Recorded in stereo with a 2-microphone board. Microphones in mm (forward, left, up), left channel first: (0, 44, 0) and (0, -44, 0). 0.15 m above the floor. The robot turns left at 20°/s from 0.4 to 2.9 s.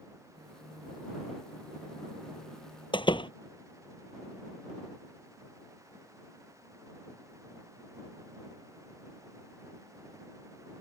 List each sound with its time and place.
2.9 s a door slam: 65° left (ahead or behind)